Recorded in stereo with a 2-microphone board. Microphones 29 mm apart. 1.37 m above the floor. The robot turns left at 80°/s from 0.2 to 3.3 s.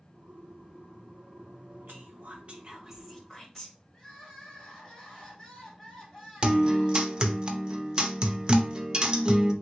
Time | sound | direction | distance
1.9 | whispering | 85° right | 1.0 m
3.9 | crying | 20° left (ahead or behind) | 2 m
6.4 | a guitar | 30° right (ahead or behind) | 0.5 m